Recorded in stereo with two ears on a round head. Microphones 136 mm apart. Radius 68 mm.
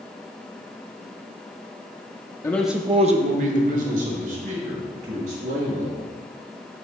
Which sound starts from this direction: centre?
A man speaking, at 2.4 s.